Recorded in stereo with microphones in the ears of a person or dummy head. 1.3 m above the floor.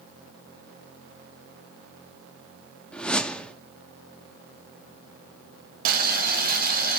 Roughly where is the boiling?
Right.